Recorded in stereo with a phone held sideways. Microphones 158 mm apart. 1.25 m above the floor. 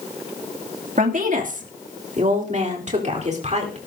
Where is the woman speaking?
60° right (ahead or behind), 2.5 m; by 3.8 s 50° right (ahead or behind), 4.5 m.